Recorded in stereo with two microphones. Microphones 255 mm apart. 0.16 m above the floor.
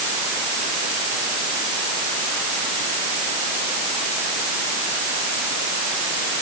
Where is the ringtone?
I don't hear a ringtone.